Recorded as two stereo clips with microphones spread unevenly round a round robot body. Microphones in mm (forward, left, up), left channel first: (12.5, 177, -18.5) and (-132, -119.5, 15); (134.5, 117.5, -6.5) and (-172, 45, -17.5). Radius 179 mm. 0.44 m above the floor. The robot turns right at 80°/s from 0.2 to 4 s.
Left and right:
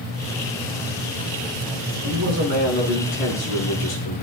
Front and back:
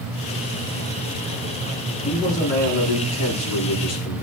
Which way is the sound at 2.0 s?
85° right.